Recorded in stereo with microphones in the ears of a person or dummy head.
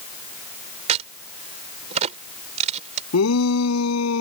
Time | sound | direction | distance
0.9 | a crack | 45° right (ahead or behind) | ?
3.1 | a shout | 90° left | ?